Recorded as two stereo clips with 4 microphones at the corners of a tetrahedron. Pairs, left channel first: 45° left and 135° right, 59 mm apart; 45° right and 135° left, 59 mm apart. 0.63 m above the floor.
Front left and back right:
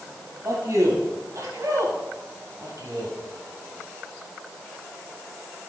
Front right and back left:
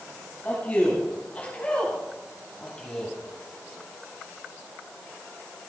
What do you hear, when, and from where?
0.4 s a man speaking: 105° right, 4 m; by 3.1 s 125° right, 3 m